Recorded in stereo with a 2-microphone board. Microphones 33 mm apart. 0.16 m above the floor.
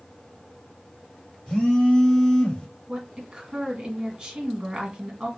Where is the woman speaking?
25° right (ahead or behind), 1.8 m.